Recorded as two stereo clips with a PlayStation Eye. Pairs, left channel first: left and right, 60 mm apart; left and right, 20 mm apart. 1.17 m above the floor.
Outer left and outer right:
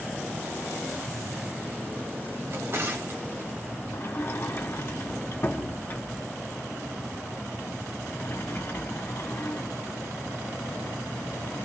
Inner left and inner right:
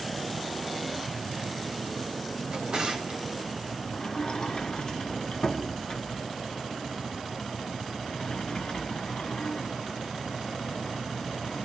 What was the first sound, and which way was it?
A drawer, 45° right (ahead or behind).